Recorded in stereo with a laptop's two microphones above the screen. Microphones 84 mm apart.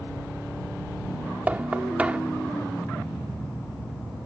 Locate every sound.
1.5 s knocking: 20° right (ahead or behind)